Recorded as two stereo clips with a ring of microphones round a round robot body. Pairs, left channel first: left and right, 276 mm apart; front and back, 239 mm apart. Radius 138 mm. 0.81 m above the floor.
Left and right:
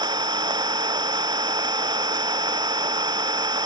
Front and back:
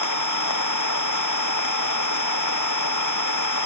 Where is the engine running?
15° right.